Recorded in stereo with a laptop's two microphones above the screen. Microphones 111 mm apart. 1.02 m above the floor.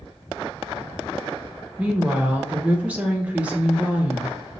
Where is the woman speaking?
15° right (ahead or behind), 0.6 m.